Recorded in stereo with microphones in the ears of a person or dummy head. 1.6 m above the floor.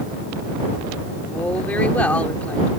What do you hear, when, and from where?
1.3 s a woman speaking: 5° left (ahead or behind)